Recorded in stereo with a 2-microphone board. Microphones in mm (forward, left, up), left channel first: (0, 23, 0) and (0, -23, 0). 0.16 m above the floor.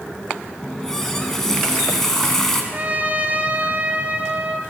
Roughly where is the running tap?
Centre.